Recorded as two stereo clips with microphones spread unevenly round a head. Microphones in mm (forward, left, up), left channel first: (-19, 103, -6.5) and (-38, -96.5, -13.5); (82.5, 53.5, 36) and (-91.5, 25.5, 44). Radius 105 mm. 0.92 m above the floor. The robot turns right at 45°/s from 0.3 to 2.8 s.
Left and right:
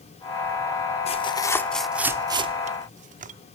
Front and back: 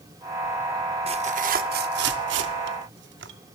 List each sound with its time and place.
1.1 s tearing paper: 140° left, 0.7 m; by 3.3 s 145° right, 0.7 m